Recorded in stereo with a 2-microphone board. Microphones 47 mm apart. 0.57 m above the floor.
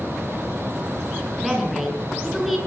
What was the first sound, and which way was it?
A woman speaking, centre (ahead or behind).